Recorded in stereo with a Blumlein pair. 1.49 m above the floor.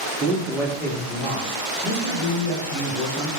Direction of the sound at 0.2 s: 20° right.